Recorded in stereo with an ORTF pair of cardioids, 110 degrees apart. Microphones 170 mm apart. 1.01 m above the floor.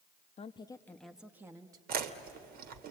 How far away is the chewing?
About 1.6 m.